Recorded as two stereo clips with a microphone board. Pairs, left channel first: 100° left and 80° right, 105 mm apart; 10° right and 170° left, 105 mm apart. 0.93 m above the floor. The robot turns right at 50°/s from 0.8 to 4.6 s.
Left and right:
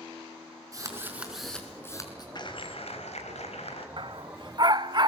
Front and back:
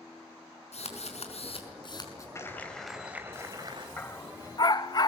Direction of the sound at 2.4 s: 55° left.